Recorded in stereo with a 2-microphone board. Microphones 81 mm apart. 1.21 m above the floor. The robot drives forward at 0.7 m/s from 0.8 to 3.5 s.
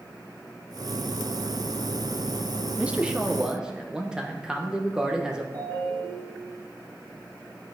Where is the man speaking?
15° right (ahead or behind), 0.6 m; by 5.4 s 10° right (ahead or behind), 1.1 m.